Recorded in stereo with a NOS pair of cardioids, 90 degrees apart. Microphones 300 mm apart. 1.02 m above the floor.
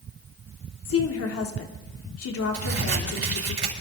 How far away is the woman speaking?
About 2.5 m.